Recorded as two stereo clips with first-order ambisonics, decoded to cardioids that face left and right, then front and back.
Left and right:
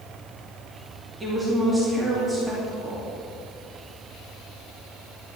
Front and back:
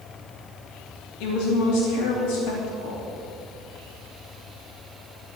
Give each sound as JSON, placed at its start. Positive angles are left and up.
{"t": 1.2, "sound": "a woman speaking", "azimuth_deg": -5, "distance_m": 3.0}